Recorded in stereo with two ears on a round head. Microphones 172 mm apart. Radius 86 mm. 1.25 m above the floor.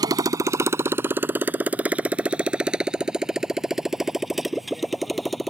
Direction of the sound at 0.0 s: 20° right (ahead or behind).